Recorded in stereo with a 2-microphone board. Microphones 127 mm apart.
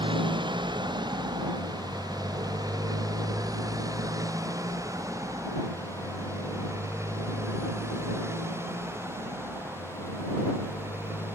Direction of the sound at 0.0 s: 40° right (ahead or behind).